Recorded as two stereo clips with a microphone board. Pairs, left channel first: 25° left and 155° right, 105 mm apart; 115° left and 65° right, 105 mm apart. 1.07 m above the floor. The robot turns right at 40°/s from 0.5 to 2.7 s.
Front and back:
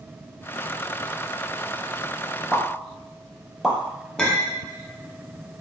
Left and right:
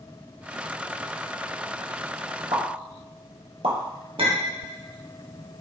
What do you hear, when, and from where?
2.5 s a pop: 80° right, 1.4 m; by 3.8 s 70° right, 1.4 m
4.2 s a clink: 55° right, 0.9 m